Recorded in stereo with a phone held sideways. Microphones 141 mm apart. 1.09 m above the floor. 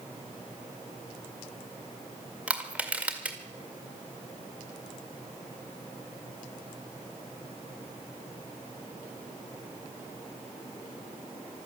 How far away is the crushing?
About 1.9 m.